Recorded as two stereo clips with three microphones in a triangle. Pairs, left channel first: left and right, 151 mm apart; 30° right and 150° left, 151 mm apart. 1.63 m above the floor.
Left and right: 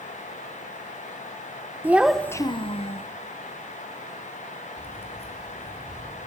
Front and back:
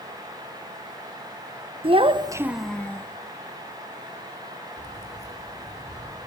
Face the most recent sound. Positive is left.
turn(degrees=40)